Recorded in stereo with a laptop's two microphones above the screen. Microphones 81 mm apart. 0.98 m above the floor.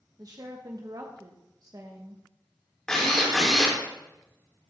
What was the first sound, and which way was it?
A woman speaking, 50° right (ahead or behind).